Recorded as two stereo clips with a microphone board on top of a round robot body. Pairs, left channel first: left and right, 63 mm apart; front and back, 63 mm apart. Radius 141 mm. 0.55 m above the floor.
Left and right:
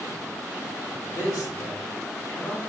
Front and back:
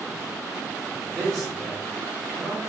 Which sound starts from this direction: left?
A man speaking, at 1.1 s.